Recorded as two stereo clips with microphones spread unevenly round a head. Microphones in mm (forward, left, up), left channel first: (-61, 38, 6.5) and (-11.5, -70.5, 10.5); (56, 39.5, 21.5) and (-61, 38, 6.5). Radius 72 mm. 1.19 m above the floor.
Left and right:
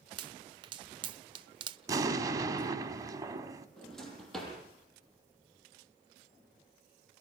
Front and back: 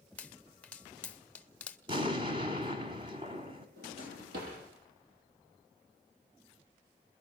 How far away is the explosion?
About 1.6 m.